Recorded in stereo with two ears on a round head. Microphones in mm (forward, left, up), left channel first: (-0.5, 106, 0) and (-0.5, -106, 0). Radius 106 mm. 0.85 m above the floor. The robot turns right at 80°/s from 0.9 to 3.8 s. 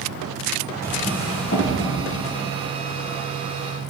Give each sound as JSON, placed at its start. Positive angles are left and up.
{"t": 0.8, "sound": "a drawer", "side_deg": -10, "distance_m": 8.5}